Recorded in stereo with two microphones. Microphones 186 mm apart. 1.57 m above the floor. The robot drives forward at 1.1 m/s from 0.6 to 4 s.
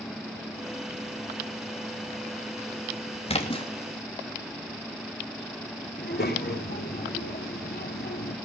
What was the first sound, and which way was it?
A splash, 30° left (ahead or behind).